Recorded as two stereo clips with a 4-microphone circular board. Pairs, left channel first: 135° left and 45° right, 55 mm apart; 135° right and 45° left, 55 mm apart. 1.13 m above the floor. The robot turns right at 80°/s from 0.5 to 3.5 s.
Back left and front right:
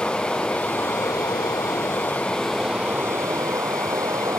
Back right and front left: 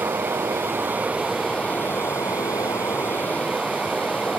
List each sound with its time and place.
0.0 s running water: 65° left; by 4.4 s 55° right